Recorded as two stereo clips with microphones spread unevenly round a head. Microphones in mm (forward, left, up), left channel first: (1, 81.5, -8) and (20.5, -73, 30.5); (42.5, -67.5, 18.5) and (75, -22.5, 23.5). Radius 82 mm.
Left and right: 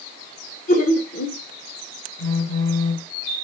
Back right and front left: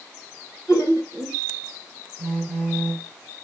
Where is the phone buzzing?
30° left, 1.5 m.